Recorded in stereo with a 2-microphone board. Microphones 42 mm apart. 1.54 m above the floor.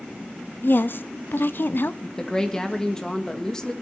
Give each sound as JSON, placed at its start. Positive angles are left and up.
{"t": 0.6, "sound": "a woman speaking", "side_deg": 55, "distance_m": 0.7}
{"t": 2.0, "sound": "a woman speaking", "side_deg": 15, "distance_m": 1.6}